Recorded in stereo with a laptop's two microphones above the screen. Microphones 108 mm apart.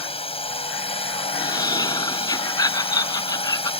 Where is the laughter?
35° left (ahead or behind).